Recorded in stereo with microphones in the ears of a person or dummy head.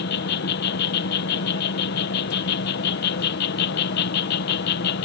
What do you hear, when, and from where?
0.0 s an insect: 60° left (ahead or behind)